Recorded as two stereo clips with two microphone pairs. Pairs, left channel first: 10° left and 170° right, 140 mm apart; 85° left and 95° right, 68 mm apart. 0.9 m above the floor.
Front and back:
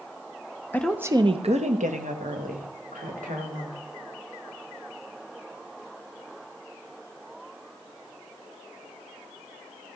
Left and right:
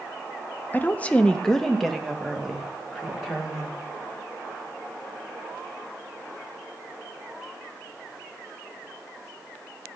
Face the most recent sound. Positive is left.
turn(degrees=180)